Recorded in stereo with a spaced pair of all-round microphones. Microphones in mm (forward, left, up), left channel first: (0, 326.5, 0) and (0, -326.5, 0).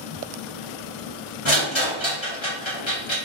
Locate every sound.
1.4 s a rattle: 45° left (ahead or behind), 1.3 m